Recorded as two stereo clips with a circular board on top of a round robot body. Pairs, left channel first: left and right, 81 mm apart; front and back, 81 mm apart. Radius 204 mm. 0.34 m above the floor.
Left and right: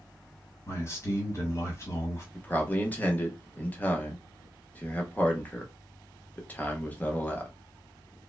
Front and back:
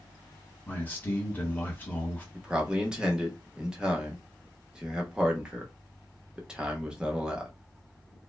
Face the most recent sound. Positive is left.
turn(degrees=120)